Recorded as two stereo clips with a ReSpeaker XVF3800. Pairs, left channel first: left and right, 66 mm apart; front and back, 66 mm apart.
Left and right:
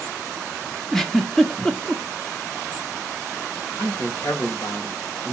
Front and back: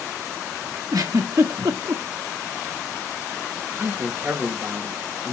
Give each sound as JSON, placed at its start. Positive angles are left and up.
{"t": 0.9, "sound": "a giggle", "azimuth_deg": 175, "distance_m": 1.4}
{"t": 3.8, "sound": "a man speaking", "azimuth_deg": 115, "distance_m": 4.0}